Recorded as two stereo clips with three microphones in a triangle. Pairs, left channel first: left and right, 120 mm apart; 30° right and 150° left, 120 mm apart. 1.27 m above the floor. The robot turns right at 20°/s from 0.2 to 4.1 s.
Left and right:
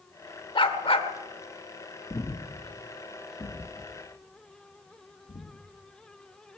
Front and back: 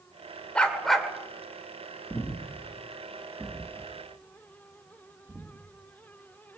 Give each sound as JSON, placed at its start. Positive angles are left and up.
{"t": 0.6, "sound": "a dog barking", "azimuth_deg": 50, "distance_m": 1.9}
{"t": 2.1, "sound": "breathing", "azimuth_deg": 35, "distance_m": 1.5}